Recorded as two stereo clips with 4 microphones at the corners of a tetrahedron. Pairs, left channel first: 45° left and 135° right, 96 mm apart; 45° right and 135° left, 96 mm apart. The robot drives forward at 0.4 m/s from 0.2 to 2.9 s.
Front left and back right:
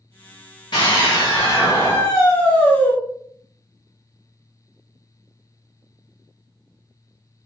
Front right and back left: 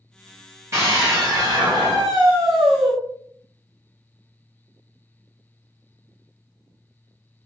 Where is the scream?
80° left, 1.4 m; by 2.9 s 115° left, 1.5 m.